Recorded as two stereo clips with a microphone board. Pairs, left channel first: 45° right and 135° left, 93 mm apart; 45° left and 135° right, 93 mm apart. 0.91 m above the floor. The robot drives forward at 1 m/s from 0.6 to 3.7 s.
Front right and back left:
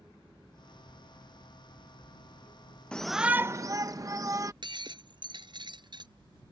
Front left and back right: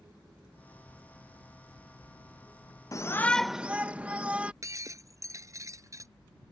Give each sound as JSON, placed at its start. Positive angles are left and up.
{"t": 2.9, "sound": "a shout", "azimuth_deg": 30}
{"t": 4.6, "sound": "breaking glass", "azimuth_deg": 170}